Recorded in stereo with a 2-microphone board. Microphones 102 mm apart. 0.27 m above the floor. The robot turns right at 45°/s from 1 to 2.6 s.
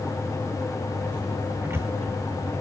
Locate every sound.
1.6 s a cupboard door: 25° right (ahead or behind), 2.5 m; by 1.9 s 35° right (ahead or behind), 2.5 m